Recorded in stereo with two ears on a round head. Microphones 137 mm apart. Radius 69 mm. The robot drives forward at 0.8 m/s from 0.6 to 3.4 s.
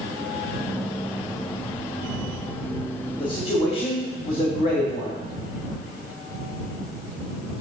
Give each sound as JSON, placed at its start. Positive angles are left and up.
{"t": 3.2, "sound": "a man speaking", "side_deg": 35, "distance_m": 2.0}